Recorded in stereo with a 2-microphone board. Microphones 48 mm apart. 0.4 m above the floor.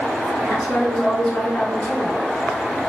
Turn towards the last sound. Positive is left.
turn(degrees=15)  # may be behind; listen again after turning